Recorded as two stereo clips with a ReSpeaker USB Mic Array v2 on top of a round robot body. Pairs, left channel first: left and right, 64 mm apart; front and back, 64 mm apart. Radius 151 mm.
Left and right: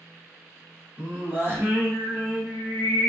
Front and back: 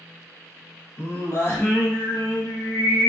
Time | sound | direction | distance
1.0 | singing | 40° right | 1.3 m